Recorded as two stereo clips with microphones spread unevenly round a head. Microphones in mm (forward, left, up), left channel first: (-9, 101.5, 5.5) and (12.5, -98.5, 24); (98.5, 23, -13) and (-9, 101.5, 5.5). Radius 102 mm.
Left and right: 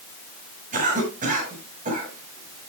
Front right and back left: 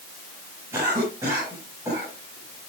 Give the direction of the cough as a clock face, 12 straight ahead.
5 o'clock.